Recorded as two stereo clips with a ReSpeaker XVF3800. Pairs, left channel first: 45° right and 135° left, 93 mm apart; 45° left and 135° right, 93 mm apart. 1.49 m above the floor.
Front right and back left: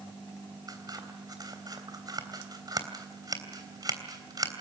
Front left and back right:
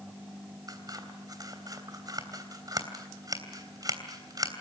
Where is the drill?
I don't hear a drill.